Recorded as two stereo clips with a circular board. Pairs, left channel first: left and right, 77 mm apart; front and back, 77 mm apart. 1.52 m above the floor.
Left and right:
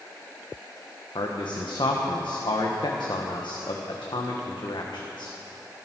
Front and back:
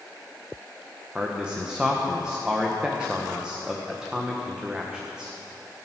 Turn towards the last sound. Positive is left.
turn(degrees=100)